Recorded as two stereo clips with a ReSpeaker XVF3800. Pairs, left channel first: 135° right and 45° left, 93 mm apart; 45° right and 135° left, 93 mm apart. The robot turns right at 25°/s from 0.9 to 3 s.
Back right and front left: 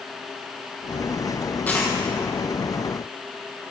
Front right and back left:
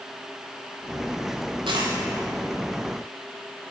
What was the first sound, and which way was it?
A dropped coin, 155° left.